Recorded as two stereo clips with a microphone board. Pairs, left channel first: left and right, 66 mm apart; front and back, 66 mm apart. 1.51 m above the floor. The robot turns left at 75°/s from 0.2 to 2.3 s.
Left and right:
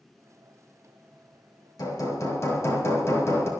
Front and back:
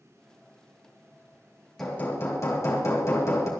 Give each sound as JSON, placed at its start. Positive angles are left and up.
{"t": 1.8, "sound": "hammering", "azimuth_deg": 85, "distance_m": 3.5}